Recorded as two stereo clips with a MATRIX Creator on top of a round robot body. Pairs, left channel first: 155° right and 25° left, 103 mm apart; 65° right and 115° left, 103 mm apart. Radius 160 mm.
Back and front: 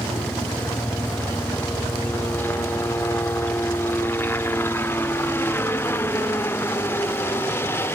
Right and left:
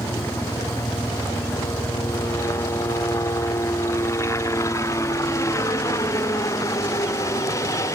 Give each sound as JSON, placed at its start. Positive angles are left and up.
{"t": 0.0, "sound": "a helicopter", "azimuth_deg": -105}